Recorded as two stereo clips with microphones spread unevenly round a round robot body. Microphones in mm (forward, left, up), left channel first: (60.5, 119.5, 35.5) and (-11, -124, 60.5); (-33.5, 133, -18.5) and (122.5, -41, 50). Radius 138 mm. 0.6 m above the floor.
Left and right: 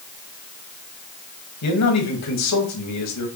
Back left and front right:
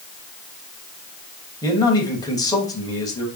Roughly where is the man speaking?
Ahead left.